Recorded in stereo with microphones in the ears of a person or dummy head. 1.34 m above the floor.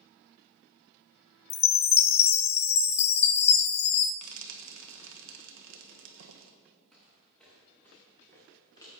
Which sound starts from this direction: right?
Frying, at 4.2 s.